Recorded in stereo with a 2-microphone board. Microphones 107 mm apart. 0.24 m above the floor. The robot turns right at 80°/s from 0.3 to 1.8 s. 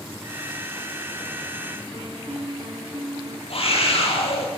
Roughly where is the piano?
Right.